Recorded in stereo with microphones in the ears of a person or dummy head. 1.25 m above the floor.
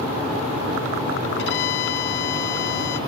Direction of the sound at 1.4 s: 65° left (ahead or behind).